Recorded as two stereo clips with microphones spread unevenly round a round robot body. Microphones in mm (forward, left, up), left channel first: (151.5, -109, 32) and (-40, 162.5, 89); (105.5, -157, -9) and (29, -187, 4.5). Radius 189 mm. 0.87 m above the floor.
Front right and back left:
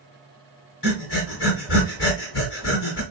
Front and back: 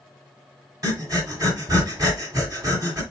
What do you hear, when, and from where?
0.8 s breathing: 115° right, 1.8 m